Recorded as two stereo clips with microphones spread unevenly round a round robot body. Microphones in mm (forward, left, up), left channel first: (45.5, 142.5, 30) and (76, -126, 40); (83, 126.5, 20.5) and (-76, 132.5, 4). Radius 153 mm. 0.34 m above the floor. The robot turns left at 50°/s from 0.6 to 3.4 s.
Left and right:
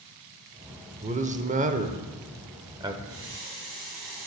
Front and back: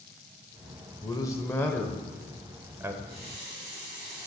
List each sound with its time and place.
1.0 s a man speaking: 50° right, 0.9 m; by 2.9 s 150° right, 0.9 m
3.0 s a running tap: 125° right, 4 m; by 4.3 s 145° right, 4 m